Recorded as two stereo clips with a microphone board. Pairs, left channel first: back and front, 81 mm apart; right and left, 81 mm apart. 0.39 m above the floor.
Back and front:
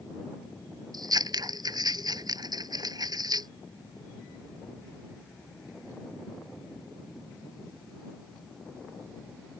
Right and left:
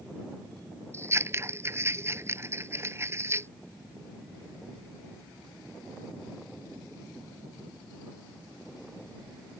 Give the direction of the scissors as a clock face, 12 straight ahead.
11 o'clock.